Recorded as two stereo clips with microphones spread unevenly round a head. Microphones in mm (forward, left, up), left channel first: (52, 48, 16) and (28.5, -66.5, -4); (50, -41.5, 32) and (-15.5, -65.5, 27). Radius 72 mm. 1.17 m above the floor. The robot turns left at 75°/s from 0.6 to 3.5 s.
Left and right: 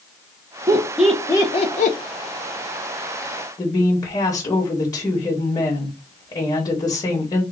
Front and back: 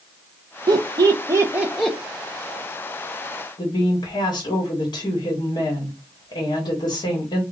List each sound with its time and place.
0.7 s laughter: 160° right, 0.6 m; by 2.0 s 105° left, 0.6 m
3.6 s a woman speaking: 20° left, 1.4 m